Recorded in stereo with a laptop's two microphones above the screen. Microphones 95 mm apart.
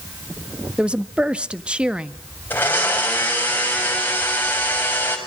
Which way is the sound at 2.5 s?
20° left (ahead or behind).